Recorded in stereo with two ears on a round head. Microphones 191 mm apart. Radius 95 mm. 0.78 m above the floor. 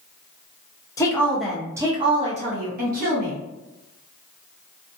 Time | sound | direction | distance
1.0 | a woman speaking | 15° left (ahead or behind) | 0.7 m